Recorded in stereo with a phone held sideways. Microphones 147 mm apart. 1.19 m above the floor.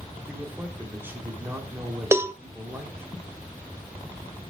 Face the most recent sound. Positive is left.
turn(degrees=-15)  # may be behind; listen again after turning